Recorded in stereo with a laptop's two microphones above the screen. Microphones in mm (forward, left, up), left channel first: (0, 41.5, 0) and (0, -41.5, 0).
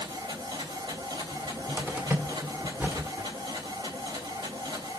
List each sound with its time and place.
0.0 s a machine running: 65° right (ahead or behind), 3 m
1.3 s a cupboard door: 25° right (ahead or behind), 1.7 m